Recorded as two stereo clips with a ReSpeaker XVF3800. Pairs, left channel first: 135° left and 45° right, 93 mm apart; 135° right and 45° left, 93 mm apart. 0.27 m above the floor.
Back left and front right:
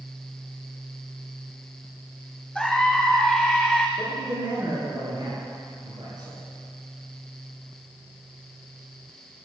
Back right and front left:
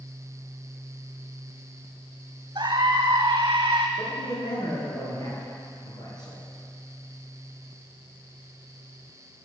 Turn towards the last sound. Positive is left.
turn(degrees=-90)